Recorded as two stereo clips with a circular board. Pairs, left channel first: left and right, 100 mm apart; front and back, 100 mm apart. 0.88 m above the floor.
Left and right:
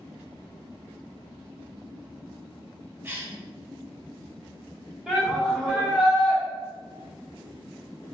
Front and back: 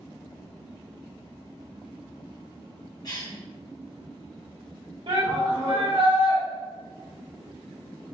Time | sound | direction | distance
3.0 | a cough | 30° right | 1.1 m
5.1 | a shout | 175° right | 0.7 m